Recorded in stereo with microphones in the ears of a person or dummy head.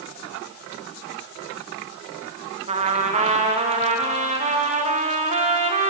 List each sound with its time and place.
2.7 s a trumpet: 30° right (ahead or behind), 1.0 m